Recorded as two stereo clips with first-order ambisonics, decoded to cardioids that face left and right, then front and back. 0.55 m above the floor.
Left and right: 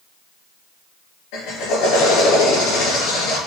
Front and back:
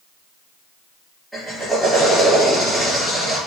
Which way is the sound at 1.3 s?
85° left.